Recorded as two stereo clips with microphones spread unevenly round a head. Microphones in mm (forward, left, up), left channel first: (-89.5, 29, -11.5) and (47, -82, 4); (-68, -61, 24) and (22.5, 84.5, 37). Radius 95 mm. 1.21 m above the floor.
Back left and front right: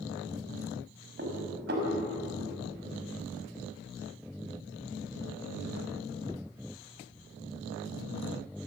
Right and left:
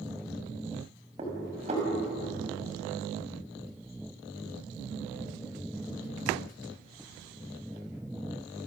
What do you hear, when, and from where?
1.2 s dishes clattering: straight ahead, 5.5 m